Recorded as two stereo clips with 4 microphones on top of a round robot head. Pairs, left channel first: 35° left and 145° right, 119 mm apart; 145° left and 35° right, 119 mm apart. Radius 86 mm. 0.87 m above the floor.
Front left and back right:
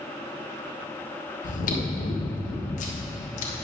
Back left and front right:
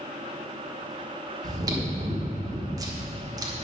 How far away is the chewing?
About 1.3 m.